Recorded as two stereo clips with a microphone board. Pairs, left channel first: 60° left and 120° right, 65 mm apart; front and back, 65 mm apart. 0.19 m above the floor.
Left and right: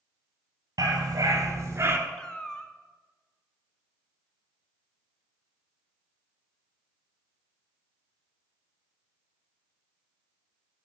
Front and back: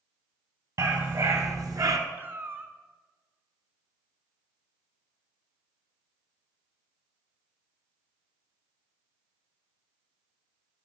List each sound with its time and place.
0.8 s a dog barking: 145° right, 1.5 m; by 2.0 s 170° right, 0.8 m
2.2 s a cat meowing: 135° left, 0.6 m